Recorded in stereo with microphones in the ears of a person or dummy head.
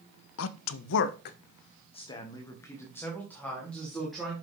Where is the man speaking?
75° left (ahead or behind), 0.7 m; by 4.3 s 5° left (ahead or behind), 2 m.